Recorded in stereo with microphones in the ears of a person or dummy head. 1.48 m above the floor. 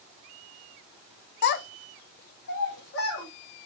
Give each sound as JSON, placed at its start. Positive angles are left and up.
{"t": 1.4, "sound": "a child speaking", "side_deg": 55, "distance_m": 0.5}